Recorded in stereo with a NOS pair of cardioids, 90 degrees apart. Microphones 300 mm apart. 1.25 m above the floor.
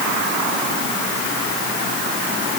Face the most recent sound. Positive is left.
No sound to turn to.